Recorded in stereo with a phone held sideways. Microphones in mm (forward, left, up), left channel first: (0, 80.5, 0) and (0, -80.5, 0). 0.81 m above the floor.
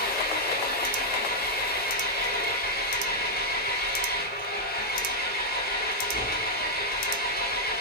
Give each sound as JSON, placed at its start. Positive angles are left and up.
{"t": 0.0, "sound": "an engine running", "side_deg": 75, "distance_m": 2.0}